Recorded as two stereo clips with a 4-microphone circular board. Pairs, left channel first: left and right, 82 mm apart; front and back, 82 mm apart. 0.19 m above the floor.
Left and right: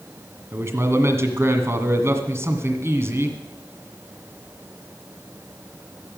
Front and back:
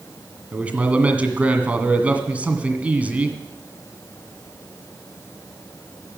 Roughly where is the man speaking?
Behind right.